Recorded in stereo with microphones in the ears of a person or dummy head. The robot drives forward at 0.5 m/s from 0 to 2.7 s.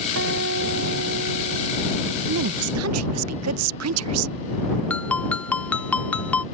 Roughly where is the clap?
I don't hear a clap.